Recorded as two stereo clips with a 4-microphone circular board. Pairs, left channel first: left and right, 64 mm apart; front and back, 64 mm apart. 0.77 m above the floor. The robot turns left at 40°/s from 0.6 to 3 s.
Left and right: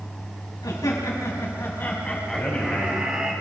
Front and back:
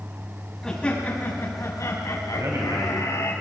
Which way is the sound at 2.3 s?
165° left.